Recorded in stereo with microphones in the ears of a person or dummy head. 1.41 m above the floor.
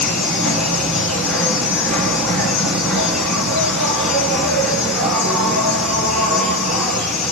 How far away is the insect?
About 5 m.